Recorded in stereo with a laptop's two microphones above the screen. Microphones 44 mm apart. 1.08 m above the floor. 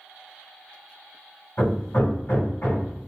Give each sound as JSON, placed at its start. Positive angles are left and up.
{"t": 1.6, "sound": "hammering", "side_deg": 55, "distance_m": 1.6}